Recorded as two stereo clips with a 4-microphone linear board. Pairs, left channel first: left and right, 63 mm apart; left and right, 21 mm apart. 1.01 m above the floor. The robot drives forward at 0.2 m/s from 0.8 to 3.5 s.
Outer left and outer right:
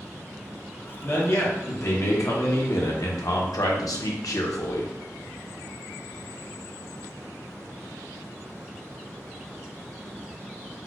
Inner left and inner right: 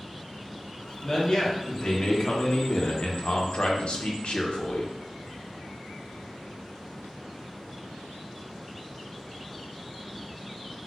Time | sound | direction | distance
1.0 | a man speaking | 45° left (ahead or behind) | 0.8 m